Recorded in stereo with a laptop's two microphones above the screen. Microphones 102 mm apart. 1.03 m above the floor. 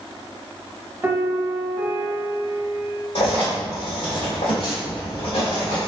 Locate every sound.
1.0 s a piano: 25° right (ahead or behind), 0.7 m
3.1 s writing: 60° left (ahead or behind), 1.6 m